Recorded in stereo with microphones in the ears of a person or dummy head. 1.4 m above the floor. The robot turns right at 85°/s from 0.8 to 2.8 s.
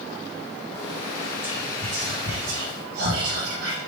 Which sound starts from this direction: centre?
Whispering, at 1.4 s.